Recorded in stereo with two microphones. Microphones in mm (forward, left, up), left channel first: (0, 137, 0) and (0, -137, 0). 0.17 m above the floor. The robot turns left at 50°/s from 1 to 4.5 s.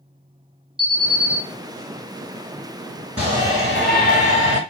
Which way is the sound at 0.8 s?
20° right (ahead or behind).